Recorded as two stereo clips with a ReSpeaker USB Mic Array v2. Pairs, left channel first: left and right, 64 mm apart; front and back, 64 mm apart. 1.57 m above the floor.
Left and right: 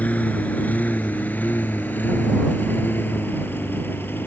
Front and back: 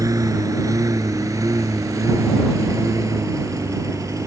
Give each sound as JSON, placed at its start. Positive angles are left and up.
{"t": 0.0, "sound": "a lawn mower", "azimuth_deg": 160}